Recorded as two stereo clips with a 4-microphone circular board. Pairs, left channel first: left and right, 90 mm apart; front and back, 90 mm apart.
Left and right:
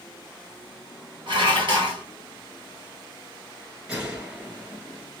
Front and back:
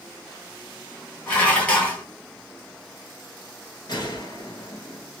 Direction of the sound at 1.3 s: 70° right.